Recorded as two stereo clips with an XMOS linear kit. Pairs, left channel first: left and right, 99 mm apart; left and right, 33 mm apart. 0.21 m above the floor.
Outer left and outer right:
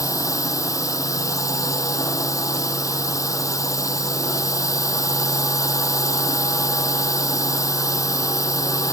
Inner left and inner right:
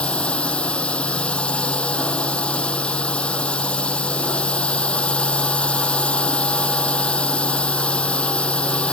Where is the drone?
35° left (ahead or behind).